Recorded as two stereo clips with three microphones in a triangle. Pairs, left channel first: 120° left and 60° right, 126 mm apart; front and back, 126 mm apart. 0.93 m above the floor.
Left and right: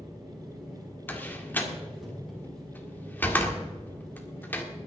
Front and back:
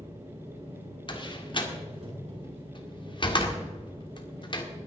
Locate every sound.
0.0 s an engine running: 150° right, 5.5 m
1.1 s a door slam: 45° left, 1.8 m